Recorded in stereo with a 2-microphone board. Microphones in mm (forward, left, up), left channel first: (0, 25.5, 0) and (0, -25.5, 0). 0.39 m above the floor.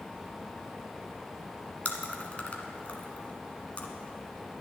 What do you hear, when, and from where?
1.9 s chewing: 30° left (ahead or behind), 1.5 m